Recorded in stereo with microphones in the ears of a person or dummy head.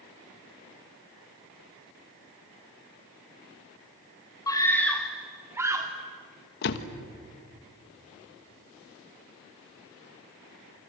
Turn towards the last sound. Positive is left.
turn(degrees=60)  # may be behind; listen again after turning